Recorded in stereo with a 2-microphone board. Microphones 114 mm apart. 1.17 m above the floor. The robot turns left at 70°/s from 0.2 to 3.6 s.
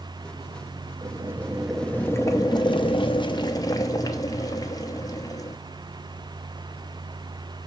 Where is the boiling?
130° right, 0.7 m; by 5.6 s 45° left, 0.7 m.